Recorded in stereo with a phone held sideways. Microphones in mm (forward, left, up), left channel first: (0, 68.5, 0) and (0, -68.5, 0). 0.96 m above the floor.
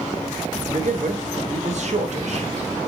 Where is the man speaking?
60° right (ahead or behind), 0.6 m.